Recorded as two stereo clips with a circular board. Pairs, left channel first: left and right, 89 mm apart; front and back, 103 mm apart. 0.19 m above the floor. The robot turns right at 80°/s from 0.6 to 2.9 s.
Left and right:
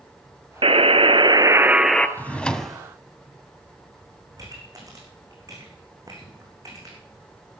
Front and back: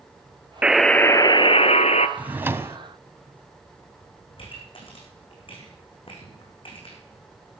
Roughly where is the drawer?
Behind left.